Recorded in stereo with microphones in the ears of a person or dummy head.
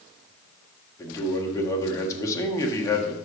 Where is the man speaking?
20° left (ahead or behind), 1.6 m.